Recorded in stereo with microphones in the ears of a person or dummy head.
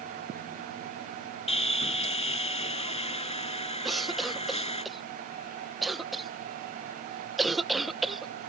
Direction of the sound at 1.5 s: 30° left (ahead or behind).